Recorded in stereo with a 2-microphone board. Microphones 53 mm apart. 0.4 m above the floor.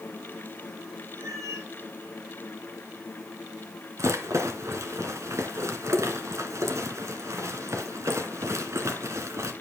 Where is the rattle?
65° right (ahead or behind), 1.8 m.